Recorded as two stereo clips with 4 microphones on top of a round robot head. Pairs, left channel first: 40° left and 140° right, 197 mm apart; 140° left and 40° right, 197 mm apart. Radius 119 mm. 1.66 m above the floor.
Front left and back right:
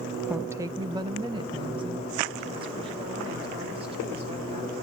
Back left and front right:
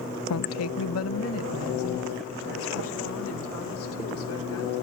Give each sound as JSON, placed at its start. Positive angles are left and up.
{"t": 0.3, "sound": "a woman speaking", "azimuth_deg": 135, "distance_m": 0.6}